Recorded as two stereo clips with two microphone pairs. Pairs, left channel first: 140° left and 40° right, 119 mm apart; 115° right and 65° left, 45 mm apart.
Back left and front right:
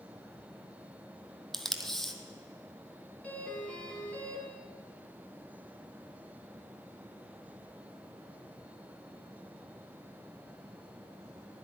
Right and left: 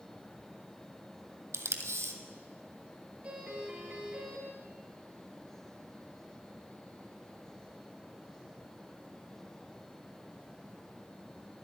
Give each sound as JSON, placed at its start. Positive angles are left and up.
{"t": 1.5, "sound": "tape being pulled", "azimuth_deg": 55, "distance_m": 1.1}
{"t": 3.2, "sound": "a doorbell", "azimuth_deg": 85, "distance_m": 2.5}